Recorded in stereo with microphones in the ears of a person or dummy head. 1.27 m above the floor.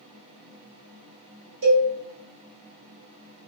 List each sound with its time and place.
1.6 s a cowbell: 85° right, 1.6 m